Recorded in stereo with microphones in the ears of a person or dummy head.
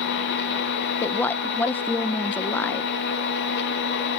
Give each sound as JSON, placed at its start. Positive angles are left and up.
{"t": 0.0, "sound": "a machine running", "side_deg": 60}
{"t": 1.0, "sound": "a woman speaking", "side_deg": 10}